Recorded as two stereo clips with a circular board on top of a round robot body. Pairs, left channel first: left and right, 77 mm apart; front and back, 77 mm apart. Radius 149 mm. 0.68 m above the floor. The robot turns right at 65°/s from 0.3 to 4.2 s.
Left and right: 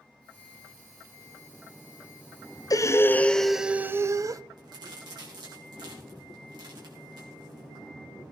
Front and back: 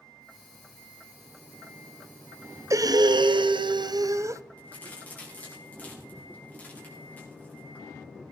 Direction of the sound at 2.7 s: 130° left.